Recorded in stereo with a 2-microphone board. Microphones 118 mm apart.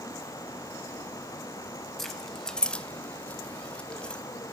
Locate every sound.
2.0 s keys jangling: 5° left (ahead or behind), 1.2 m; by 4.2 s 10° left (ahead or behind), 1.3 m